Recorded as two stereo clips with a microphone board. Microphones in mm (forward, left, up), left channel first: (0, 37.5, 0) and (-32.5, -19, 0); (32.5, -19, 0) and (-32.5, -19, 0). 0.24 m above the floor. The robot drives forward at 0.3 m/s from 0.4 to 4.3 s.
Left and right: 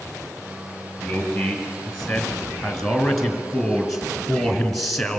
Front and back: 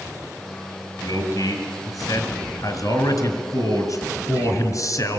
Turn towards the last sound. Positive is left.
turn(degrees=-25)